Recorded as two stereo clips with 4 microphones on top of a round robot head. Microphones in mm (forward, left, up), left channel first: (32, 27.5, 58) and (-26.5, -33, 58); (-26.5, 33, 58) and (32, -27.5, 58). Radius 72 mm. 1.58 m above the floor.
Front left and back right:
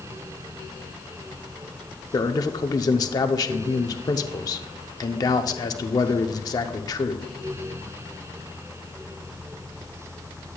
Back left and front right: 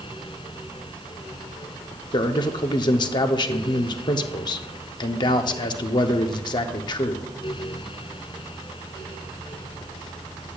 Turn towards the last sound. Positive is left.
turn(degrees=95)